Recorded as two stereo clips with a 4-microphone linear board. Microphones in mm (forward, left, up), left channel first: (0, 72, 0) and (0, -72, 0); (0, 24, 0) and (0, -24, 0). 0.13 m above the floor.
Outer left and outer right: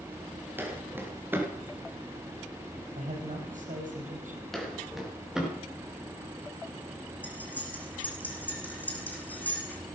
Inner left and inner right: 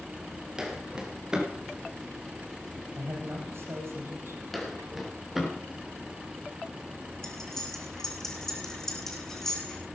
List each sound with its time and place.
0.6 s footsteps: 15° right (ahead or behind), 3.5 m
3.0 s a man speaking: 65° right (ahead or behind), 5.5 m
4.5 s footsteps: centre (ahead or behind), 4 m; by 5.5 s 5° right (ahead or behind), 5.5 m
7.2 s cutlery clinking: 10° left (ahead or behind), 4 m